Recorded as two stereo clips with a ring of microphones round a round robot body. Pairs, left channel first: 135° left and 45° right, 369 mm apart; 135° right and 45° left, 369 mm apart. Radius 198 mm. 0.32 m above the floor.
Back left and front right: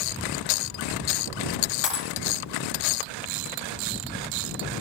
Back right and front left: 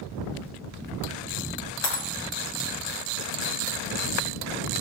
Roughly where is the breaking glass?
Behind.